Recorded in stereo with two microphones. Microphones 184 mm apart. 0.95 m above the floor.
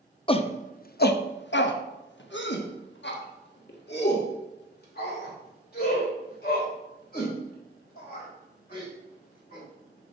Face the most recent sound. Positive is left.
turn(degrees=55)  # may be behind; listen again after turning